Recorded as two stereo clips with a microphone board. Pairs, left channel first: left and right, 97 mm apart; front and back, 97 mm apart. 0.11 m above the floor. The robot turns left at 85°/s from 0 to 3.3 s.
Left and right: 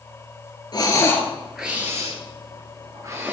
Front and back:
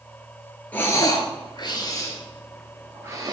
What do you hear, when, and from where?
0.7 s breathing: 65° left, 1.3 m; by 3.3 s 150° right, 1.3 m